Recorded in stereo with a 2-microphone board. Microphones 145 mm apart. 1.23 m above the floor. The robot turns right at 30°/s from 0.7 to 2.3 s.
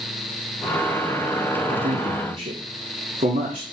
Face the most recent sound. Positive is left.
turn(degrees=-55)  # may be behind; listen again after turning